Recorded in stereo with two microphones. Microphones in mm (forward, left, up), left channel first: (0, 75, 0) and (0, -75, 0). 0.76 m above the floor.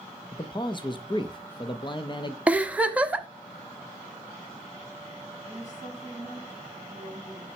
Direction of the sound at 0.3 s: 35° left (ahead or behind).